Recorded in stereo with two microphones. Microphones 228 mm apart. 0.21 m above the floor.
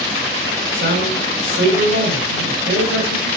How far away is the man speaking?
About 5.5 m.